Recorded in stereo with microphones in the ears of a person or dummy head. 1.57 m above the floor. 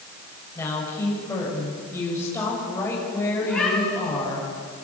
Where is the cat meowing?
5° left (ahead or behind), 10 m.